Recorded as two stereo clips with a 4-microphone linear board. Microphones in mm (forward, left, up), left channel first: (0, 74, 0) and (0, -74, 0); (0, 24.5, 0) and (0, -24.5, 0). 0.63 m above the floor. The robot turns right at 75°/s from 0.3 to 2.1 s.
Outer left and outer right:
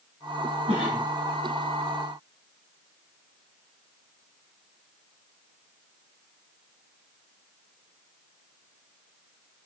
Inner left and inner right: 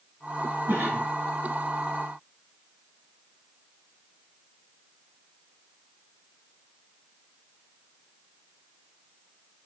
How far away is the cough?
About 4.5 m.